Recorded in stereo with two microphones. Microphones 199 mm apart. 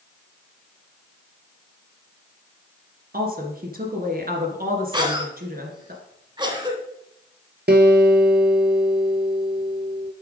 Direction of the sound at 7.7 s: 60° right (ahead or behind).